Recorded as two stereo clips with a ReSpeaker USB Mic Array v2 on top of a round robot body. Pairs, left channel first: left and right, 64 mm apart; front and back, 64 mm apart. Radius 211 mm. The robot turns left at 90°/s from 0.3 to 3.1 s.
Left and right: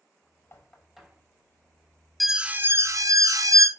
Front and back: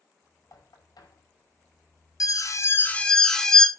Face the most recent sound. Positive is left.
turn(degrees=-80)